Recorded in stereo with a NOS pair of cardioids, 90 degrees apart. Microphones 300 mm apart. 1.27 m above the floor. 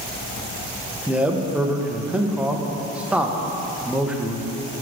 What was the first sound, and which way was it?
A man speaking, 5° right.